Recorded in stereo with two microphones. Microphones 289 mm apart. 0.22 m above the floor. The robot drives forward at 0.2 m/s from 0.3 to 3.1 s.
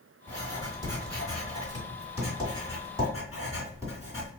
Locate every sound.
0.3 s writing: 15° right (ahead or behind), 1.5 m; by 4.3 s 10° right (ahead or behind), 1.9 m